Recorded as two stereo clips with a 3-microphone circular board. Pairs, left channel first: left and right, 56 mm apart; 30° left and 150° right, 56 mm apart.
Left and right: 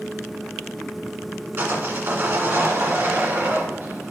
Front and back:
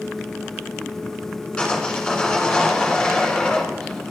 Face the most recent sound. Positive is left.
turn(degrees=-50)